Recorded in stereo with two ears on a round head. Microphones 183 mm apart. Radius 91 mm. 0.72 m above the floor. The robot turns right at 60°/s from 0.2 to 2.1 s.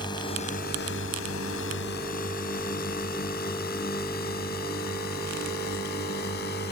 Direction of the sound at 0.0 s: 20° left (ahead or behind).